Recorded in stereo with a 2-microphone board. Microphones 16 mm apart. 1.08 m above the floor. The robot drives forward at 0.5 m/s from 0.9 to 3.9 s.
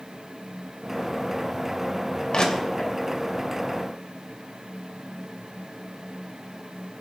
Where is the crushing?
60° left (ahead or behind), 2.5 m; by 2.9 s 70° left (ahead or behind), 2.5 m.